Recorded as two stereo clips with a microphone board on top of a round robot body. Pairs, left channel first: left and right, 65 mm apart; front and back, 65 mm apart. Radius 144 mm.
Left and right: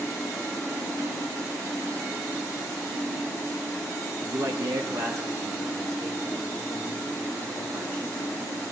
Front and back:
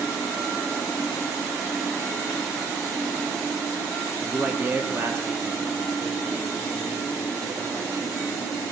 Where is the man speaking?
105° right, 1.0 m; by 8.6 s 140° right, 5.5 m.